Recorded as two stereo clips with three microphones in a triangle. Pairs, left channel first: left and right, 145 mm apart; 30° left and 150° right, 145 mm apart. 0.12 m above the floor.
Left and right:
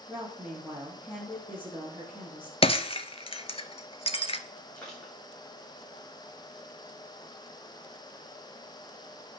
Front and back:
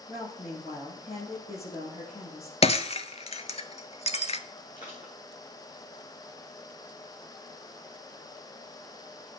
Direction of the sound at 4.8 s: 5° left.